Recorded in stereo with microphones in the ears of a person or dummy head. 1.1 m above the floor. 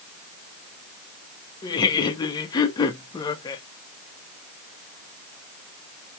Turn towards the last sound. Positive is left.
turn(degrees=20)  # may be behind; listen again after turning